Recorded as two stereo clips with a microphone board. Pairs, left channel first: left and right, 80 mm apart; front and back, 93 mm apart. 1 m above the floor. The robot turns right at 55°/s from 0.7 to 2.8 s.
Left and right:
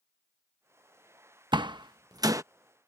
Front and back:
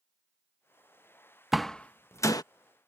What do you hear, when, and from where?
1.5 s a door slam: 90° right; by 2.4 s 45° right